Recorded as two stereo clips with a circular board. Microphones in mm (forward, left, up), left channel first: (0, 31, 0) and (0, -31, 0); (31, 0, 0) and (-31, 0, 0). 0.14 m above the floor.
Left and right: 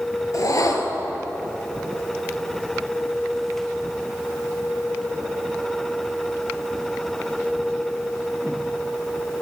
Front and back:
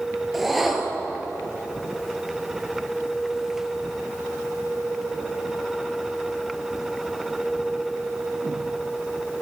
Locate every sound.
0.3 s a whoosh: 90° left, 1.3 m